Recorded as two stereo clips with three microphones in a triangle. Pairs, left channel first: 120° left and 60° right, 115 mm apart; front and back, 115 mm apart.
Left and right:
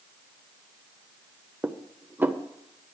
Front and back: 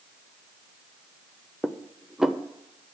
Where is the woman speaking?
I don't hear a woman speaking.